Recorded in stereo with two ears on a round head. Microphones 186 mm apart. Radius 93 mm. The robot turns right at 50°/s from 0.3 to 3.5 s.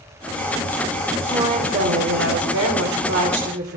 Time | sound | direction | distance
1.2 | a woman speaking | 160° right | 3.5 m